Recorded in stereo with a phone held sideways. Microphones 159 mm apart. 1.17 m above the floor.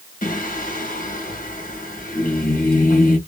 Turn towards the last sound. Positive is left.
turn(degrees=65)  # may be behind; listen again after turning